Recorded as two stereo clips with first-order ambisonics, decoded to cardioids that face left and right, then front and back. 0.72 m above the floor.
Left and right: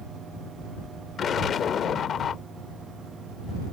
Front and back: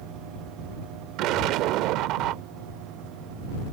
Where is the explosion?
150° left.